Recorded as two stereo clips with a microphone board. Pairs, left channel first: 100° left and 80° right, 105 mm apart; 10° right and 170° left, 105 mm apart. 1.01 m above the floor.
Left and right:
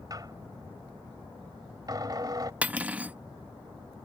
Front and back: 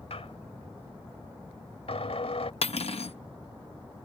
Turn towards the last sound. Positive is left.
turn(degrees=0)